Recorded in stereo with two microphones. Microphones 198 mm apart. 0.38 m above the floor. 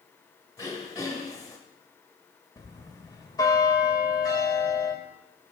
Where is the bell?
20° left (ahead or behind), 1.3 m.